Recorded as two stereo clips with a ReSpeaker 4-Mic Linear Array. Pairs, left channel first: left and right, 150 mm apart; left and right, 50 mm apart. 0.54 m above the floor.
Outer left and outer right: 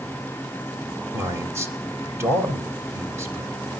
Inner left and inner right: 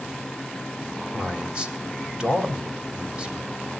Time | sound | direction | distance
1.1 | a man speaking | 20° right (ahead or behind) | 3 m